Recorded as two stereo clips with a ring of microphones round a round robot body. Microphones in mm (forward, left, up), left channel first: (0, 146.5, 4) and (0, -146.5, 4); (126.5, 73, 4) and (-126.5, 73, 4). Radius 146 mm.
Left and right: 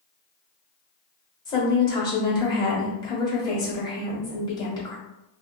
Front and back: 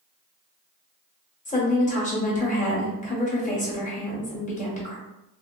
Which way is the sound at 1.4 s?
25° left.